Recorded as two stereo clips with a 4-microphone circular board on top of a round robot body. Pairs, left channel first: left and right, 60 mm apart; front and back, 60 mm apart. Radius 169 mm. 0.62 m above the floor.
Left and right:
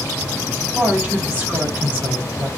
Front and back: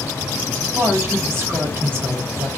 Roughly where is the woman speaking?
Behind right.